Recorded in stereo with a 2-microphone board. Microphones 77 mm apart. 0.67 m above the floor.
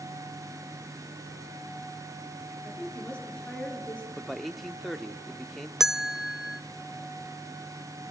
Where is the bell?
5° right (ahead or behind), 0.6 m.